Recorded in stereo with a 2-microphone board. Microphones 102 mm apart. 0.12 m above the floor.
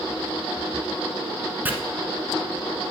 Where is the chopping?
20° right (ahead or behind), 1.0 m.